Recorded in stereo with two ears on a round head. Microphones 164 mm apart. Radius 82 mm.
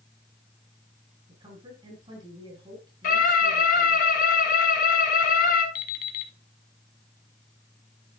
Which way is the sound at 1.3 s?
30° right (ahead or behind).